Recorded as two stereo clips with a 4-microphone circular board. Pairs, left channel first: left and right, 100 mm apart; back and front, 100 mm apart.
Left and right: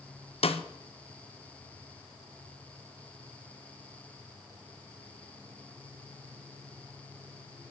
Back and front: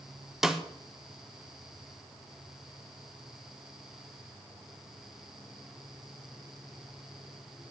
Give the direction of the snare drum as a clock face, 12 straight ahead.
9 o'clock.